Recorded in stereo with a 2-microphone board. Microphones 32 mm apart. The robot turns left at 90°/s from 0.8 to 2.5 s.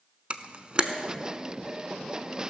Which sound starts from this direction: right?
A camera shutter, at 0.3 s.